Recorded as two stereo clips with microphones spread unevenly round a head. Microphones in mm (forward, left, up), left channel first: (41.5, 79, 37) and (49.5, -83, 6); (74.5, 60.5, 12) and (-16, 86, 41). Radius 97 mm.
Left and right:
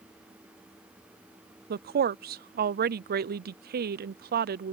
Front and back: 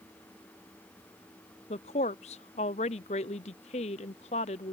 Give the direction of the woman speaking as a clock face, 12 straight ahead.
2 o'clock.